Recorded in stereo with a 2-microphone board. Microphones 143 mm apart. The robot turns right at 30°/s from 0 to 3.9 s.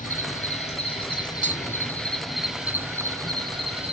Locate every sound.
0.0 s an insect: 110° left, 1.1 m; by 3.9 s 135° right, 1.1 m
1.4 s tapping: 60° right (ahead or behind), 0.5 m